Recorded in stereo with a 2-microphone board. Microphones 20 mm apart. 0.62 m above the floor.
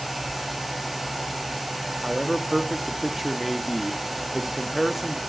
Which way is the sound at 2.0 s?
10° right (ahead or behind).